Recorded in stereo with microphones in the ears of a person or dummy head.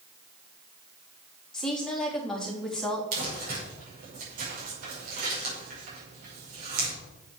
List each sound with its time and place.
1.5 s a woman speaking: 5° left (ahead or behind), 3 m
3.1 s crumpling: 45° right (ahead or behind), 5.5 m